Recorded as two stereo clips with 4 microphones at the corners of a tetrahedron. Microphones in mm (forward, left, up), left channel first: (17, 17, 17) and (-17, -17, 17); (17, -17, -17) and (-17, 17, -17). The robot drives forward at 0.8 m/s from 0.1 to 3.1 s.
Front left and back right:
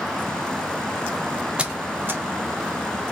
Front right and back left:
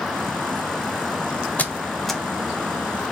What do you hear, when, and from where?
1.6 s a squeak: 80° right, 0.6 m; by 2.2 s 140° right, 0.7 m